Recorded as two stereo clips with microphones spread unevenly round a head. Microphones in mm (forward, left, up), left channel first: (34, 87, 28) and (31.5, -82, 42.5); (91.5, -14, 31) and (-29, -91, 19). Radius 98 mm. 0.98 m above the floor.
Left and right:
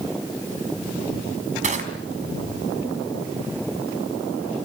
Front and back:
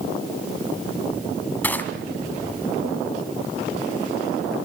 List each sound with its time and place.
1.6 s crushing: 45° right, 4 m